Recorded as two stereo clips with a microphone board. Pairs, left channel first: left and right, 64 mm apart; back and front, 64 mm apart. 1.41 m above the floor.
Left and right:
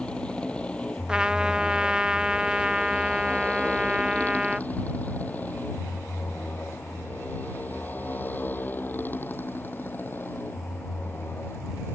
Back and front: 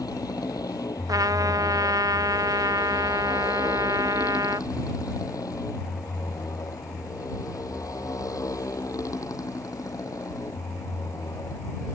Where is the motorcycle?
165° left; by 11.9 s 145° left.